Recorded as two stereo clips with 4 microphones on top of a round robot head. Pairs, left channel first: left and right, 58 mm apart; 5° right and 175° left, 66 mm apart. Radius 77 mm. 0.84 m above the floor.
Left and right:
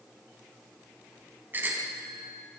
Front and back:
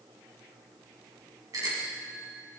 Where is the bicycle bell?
145° right, 5 m.